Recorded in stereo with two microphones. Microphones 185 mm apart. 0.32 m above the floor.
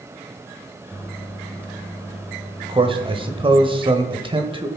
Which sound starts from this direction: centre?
A microwave, at 0.9 s.